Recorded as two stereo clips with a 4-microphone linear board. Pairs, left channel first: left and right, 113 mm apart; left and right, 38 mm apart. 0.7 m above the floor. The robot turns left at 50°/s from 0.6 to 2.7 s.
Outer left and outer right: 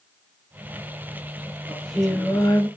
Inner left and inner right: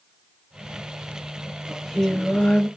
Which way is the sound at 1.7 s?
170° right.